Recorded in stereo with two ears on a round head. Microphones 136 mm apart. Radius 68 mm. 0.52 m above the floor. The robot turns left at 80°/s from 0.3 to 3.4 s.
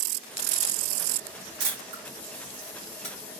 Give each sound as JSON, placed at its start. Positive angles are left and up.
{"t": 1.6, "sound": "a camera shutter", "side_deg": -65, "distance_m": 1.9}